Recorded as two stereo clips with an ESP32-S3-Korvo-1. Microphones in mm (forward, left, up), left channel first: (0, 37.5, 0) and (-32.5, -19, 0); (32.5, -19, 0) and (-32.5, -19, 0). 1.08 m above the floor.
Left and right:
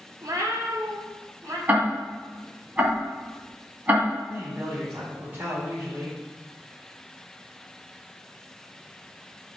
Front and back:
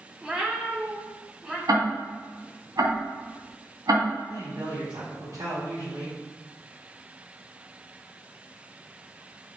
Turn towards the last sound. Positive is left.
turn(degrees=-165)